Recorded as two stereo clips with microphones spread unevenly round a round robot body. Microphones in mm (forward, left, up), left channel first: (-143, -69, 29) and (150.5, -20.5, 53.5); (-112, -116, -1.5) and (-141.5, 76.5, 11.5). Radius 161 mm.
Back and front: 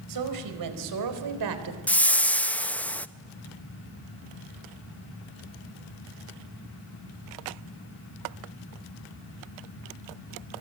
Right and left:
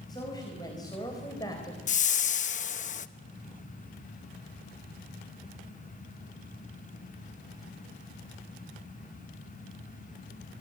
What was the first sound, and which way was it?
A woman speaking, 5° right.